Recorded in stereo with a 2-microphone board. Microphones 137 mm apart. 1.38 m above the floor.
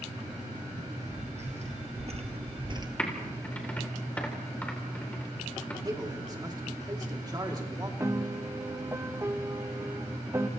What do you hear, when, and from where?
0.8 s footsteps: 55° right (ahead or behind), 3.5 m; by 2.9 s 30° right (ahead or behind), 1.6 m
3.0 s typing on a keyboard: 10° left (ahead or behind), 3.5 m
5.8 s a man speaking: 30° right (ahead or behind), 3 m
8.0 s a piano: 20° right (ahead or behind), 0.9 m